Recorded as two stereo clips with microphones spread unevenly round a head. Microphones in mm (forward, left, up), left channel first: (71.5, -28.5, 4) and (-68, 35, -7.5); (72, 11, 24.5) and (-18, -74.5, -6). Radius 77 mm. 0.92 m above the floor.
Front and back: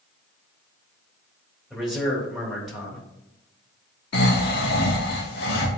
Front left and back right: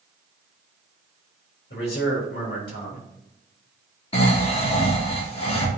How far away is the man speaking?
About 3.5 m.